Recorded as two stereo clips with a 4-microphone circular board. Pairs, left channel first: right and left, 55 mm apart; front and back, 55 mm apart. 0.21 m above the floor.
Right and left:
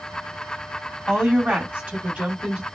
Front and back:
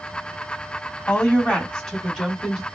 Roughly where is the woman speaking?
Ahead left.